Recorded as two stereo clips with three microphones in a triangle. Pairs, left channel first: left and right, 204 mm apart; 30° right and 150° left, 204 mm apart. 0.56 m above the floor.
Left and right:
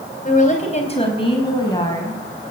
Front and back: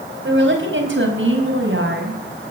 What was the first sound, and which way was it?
A woman speaking, 135° left.